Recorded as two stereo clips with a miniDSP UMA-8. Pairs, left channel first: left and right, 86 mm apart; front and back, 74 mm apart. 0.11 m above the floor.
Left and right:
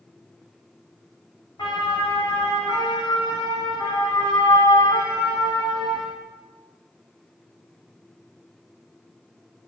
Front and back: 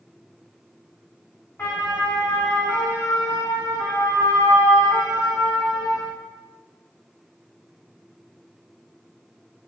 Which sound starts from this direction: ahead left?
A siren, at 1.6 s.